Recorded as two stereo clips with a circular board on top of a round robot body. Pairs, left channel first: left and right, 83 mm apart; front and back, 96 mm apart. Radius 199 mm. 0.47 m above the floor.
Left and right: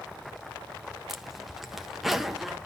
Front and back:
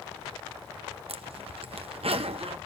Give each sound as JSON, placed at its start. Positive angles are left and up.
{"t": 1.1, "sound": "a zipper", "azimuth_deg": -175, "distance_m": 1.0}